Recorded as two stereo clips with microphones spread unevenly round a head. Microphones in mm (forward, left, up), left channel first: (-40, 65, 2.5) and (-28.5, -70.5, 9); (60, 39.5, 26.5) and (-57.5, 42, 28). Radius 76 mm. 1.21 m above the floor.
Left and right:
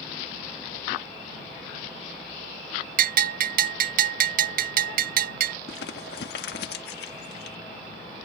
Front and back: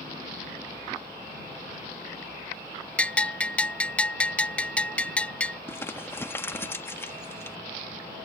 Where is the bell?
80° right.